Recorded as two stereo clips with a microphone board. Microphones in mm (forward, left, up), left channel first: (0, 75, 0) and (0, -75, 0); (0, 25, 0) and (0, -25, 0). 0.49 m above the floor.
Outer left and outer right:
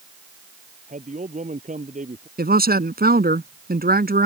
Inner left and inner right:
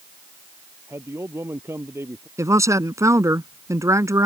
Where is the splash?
No splash in this recording.